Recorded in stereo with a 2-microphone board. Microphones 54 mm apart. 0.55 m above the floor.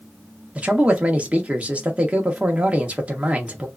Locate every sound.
0.6 s a man speaking: 25° right (ahead or behind), 0.7 m